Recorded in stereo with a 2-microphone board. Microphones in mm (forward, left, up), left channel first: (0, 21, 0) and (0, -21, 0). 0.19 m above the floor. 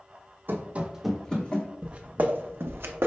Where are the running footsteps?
60° right (ahead or behind), 0.6 m; by 1.7 s 30° left (ahead or behind), 1.0 m.